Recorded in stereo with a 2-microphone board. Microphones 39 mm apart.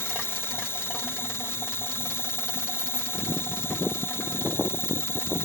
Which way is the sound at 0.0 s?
75° left (ahead or behind).